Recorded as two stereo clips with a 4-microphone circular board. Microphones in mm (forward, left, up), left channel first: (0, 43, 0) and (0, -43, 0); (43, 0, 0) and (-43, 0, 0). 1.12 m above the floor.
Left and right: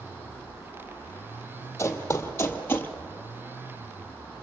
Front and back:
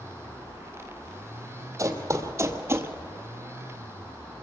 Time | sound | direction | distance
1.8 | running footsteps | 140° left | 1.7 m